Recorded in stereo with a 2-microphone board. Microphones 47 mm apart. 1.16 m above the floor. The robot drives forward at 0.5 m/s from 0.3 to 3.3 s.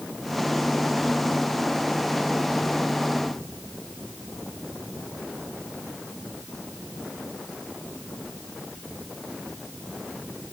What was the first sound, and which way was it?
Only background noise.